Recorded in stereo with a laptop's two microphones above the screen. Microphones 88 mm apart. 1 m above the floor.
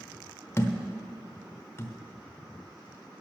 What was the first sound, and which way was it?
A thud, 30° left (ahead or behind).